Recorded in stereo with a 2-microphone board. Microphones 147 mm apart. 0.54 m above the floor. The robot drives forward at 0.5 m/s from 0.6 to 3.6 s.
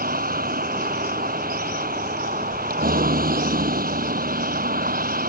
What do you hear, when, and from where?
0.0 s a vehicle: 90° right; by 5.3 s 85° right